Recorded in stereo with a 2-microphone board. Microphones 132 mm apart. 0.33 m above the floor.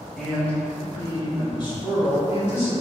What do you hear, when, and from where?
0.2 s a man speaking: centre (ahead or behind), 1.3 m; by 2.7 s 55° left (ahead or behind), 1.9 m